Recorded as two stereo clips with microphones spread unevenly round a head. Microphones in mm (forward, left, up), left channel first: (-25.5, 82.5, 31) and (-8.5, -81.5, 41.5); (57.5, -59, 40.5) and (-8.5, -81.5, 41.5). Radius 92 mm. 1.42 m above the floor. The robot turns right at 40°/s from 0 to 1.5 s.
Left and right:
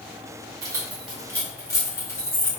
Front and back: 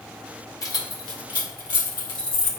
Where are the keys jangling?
15° right, 2 m; by 2.5 s 20° left, 2 m.